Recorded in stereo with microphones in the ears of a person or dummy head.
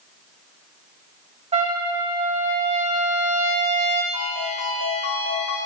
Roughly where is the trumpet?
Right.